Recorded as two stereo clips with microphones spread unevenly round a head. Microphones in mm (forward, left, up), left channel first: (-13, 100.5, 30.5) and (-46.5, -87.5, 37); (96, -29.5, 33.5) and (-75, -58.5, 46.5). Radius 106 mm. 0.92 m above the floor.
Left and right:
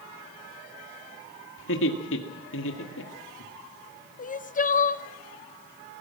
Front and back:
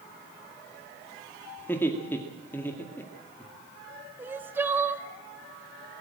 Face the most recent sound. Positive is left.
turn(degrees=110)